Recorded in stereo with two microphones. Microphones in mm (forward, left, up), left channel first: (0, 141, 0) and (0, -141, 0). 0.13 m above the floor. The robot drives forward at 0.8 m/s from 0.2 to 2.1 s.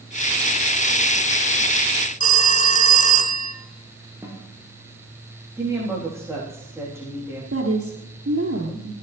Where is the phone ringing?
25° left (ahead or behind), 1.2 m.